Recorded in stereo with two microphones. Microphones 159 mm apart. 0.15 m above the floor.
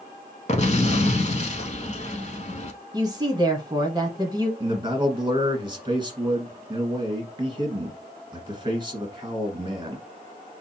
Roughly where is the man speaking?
Right.